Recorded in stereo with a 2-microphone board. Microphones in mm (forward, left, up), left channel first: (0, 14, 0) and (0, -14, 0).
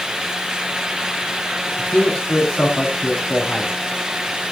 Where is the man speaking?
60° left (ahead or behind), 5 m; by 3.8 s 45° left (ahead or behind), 6 m.